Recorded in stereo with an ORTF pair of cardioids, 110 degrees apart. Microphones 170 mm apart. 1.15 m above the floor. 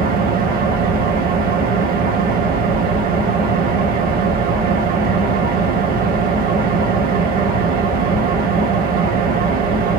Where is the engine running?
60° right, 1.3 m.